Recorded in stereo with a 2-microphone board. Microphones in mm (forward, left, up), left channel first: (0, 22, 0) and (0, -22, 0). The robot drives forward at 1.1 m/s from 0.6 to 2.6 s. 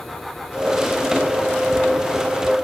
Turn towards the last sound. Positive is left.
No sound to turn to.